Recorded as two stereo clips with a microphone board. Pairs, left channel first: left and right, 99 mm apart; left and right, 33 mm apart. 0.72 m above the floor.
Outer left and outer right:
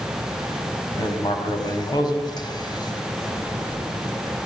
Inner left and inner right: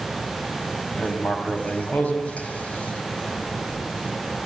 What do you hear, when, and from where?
0.9 s writing: 45° left (ahead or behind), 3.5 m